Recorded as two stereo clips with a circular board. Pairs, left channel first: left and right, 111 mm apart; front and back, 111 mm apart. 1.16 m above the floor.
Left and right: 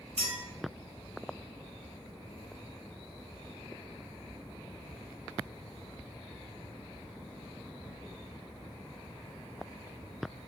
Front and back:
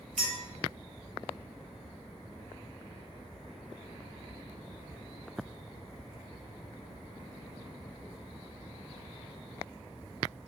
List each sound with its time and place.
0.2 s a clink: 80° right, 1.9 m